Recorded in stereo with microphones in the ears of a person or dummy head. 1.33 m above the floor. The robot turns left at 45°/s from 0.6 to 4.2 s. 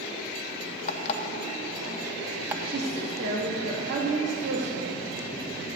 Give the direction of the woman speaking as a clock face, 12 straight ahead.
2 o'clock.